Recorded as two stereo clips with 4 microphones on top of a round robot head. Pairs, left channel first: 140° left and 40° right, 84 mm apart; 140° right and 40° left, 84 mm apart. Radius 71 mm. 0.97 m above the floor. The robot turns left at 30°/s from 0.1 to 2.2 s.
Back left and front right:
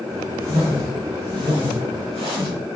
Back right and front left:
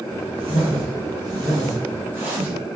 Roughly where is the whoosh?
Ahead left.